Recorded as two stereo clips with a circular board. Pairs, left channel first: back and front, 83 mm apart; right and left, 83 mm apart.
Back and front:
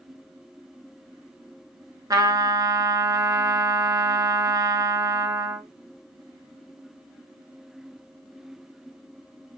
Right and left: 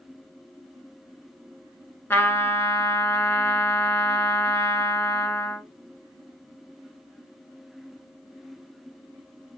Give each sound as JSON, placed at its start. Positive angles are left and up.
{"t": 2.1, "sound": "a trumpet", "azimuth_deg": -30, "distance_m": 0.6}